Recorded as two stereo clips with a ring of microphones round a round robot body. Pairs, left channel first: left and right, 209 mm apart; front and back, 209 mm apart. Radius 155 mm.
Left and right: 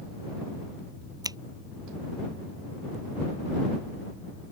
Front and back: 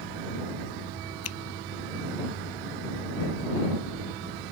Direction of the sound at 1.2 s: 20° right.